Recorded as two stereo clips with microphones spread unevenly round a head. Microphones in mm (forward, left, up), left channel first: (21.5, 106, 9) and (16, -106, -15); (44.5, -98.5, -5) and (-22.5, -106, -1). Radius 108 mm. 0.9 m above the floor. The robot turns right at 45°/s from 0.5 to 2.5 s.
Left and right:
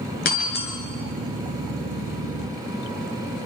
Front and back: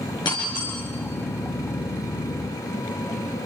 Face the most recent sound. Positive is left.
turn(degrees=135)